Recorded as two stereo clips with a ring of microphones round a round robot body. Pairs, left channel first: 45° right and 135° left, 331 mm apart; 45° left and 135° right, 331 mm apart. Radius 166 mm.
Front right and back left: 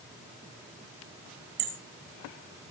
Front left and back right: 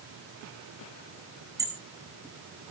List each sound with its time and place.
1.6 s hammering: 145° left, 4.5 m